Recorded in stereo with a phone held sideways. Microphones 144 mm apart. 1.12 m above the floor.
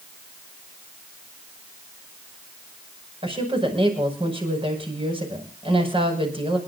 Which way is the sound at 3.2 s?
40° right (ahead or behind).